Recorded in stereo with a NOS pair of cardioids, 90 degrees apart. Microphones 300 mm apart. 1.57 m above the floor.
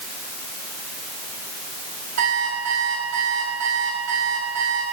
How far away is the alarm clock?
About 5.5 m.